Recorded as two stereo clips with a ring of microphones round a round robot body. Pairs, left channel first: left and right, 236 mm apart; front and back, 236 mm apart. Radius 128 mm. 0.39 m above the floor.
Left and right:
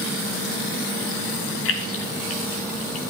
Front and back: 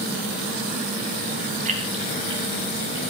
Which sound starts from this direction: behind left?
Keys jangling, at 1.6 s.